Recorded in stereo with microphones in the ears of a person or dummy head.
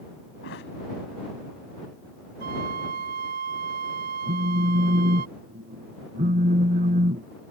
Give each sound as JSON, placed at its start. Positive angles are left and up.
{"t": 0.4, "sound": "a thud", "side_deg": 65}
{"t": 2.4, "sound": "a flute", "side_deg": -55}
{"t": 4.3, "sound": "a phone buzzing", "side_deg": -40}